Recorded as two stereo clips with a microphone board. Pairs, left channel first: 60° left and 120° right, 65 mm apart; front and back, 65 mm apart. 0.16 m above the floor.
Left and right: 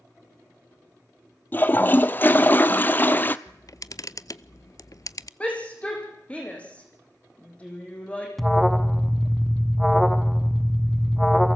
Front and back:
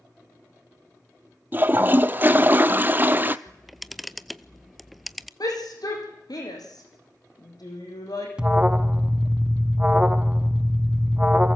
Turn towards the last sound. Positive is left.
turn(degrees=145)